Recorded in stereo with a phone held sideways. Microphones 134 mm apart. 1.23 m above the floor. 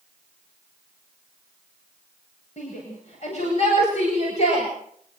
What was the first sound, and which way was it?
A shout, 55° left (ahead or behind).